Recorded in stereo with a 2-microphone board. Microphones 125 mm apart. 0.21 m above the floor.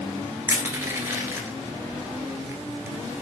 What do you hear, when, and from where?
0.5 s crushing: 20° right (ahead or behind), 1.2 m